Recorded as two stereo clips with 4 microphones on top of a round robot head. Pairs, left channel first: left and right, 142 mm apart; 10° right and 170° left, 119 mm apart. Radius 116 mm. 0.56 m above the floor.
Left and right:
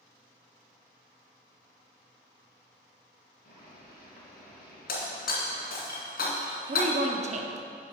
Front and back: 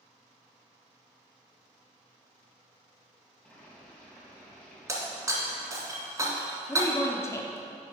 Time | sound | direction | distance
3.4 | boiling | 70° left | 3 m
4.9 | breaking glass | 105° left | 2.5 m
6.7 | a woman speaking | 75° right | 1.0 m